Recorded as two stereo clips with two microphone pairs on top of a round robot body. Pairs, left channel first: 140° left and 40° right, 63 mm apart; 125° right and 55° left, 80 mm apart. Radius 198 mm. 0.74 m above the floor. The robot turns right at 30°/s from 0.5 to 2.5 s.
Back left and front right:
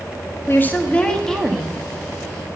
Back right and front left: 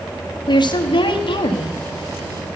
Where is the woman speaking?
155° right, 1.3 m; by 1.8 s 120° right, 1.3 m.